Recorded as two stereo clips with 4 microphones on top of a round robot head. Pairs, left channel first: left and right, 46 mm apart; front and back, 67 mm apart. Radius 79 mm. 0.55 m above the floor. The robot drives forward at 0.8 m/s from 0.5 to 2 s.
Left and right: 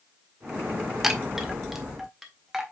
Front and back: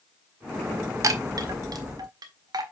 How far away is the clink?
No clink in this recording.